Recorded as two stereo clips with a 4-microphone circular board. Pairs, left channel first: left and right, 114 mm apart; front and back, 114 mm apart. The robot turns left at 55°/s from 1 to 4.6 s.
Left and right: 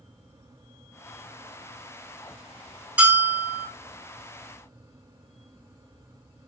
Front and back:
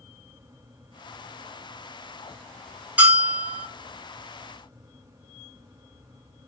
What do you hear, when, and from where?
3.0 s a bell: 130° right, 1.2 m; by 3.7 s 170° right, 1.2 m